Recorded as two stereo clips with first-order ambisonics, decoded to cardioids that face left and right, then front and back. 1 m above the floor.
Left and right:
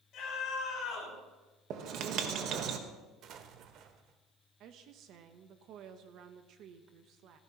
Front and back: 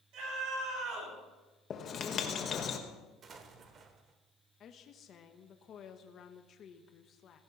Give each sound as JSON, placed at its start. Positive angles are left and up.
{"t": 0.1, "sound": "a scream", "azimuth_deg": 145, "distance_m": 6.5}
{"t": 1.7, "sound": "writing", "azimuth_deg": -55, "distance_m": 1.2}
{"t": 3.2, "sound": "an explosion", "azimuth_deg": -125, "distance_m": 1.0}
{"t": 4.6, "sound": "a woman speaking", "azimuth_deg": -55, "distance_m": 0.8}